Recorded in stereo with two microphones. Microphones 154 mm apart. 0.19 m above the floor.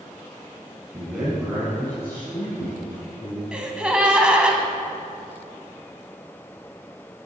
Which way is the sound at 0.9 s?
10° right (ahead or behind).